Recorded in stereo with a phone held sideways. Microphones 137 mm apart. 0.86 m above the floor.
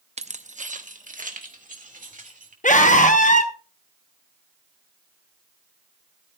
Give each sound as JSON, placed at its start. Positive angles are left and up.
{"t": 0.2, "sound": "keys jangling", "side_deg": -55, "distance_m": 0.6}
{"t": 2.6, "sound": "a scream", "side_deg": 70, "distance_m": 0.9}